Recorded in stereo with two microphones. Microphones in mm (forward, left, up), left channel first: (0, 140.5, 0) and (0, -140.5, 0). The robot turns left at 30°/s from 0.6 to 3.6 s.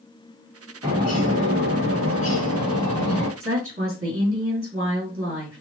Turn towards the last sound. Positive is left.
turn(degrees=-50)  # may be behind; listen again after turning